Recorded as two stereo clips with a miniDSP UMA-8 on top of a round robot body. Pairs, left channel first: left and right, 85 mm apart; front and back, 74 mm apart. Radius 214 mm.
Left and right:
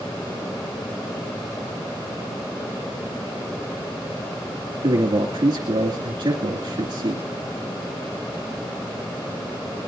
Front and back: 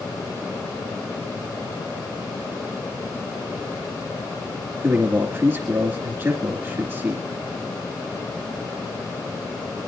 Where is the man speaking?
120° right, 2.5 m.